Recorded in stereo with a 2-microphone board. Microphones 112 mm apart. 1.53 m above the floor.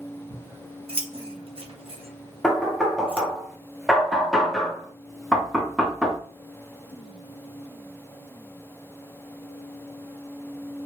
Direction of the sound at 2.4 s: Centre (ahead or behind).